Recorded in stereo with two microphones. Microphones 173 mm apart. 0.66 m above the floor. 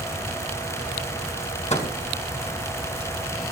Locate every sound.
1.7 s a microwave: 45° left (ahead or behind), 5 m